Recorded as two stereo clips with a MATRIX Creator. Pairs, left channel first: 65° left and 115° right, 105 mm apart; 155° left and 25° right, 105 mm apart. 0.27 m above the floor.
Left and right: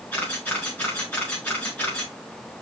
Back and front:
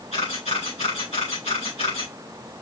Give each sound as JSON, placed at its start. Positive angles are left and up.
{"t": 0.1, "sound": "a camera shutter", "azimuth_deg": 140, "distance_m": 4.5}